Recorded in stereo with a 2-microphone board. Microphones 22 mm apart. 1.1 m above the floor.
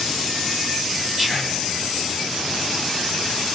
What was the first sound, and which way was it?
Whispering, 20° right (ahead or behind).